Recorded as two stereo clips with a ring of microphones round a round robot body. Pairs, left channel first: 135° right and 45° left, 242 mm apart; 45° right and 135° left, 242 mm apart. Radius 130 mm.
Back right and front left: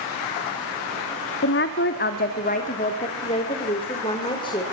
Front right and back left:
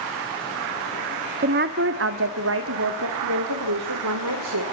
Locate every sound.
1.4 s a woman speaking: 175° right, 1.3 m; by 4.6 s 155° left, 3 m